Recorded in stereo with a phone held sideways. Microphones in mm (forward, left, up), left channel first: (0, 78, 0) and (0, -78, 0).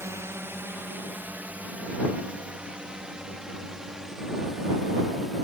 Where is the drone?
15° right (ahead or behind); by 5.5 s centre (ahead or behind).